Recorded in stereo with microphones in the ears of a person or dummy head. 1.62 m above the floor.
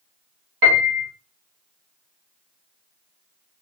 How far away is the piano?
About 0.8 m.